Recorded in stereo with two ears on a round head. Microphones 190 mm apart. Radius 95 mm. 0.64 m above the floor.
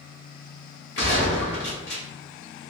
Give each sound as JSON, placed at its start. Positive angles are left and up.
{"t": 1.0, "sound": "a gunshot", "side_deg": 60, "distance_m": 1.5}